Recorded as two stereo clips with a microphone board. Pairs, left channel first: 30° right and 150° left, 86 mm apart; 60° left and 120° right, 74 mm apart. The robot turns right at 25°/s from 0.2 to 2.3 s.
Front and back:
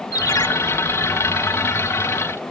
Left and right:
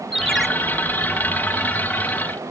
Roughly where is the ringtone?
Ahead right.